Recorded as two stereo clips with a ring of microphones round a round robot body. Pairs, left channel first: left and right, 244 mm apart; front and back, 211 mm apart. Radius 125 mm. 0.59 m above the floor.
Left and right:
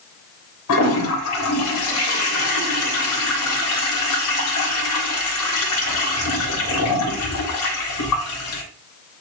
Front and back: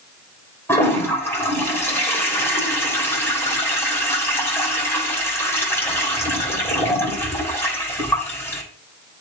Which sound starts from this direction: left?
A toilet flushing, at 0.7 s.